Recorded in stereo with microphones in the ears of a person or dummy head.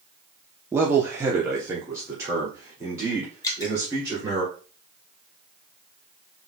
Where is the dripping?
25° left (ahead or behind), 1.0 m.